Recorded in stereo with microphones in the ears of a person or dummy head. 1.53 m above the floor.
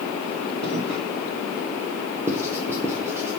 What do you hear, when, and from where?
0.6 s footsteps: 55° right (ahead or behind), 3 m
2.3 s writing: 15° right (ahead or behind), 1.0 m